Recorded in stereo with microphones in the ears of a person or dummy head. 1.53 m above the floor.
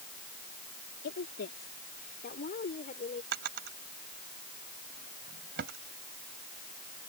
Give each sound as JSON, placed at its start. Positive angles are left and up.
{"t": 1.0, "sound": "a woman speaking", "side_deg": 65}
{"t": 3.3, "sound": "a drawer", "side_deg": -65}